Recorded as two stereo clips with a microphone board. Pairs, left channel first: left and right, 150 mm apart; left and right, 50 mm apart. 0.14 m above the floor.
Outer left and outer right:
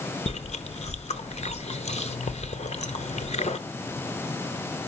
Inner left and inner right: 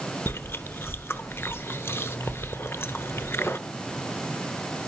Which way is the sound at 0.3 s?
45° left (ahead or behind).